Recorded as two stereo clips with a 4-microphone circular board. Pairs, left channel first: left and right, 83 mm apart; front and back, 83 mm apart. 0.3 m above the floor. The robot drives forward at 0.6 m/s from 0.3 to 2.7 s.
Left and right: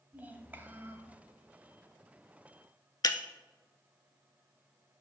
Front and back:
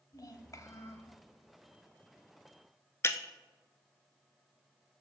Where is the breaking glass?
55° left, 0.5 m.